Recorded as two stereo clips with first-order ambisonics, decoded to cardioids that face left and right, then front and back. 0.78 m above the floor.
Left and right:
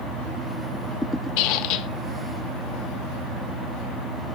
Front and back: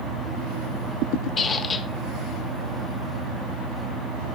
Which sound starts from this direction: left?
A squeak, at 1.4 s.